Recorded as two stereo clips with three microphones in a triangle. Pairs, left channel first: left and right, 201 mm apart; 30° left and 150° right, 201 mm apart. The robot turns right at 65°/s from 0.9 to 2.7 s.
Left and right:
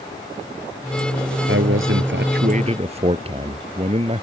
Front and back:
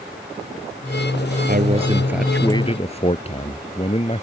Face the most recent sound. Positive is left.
turn(degrees=-30)